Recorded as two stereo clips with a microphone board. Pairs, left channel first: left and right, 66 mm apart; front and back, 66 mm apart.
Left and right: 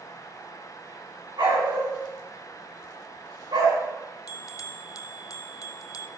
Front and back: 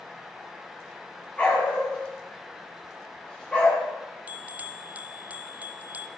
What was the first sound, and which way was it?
A dog barking, 75° right.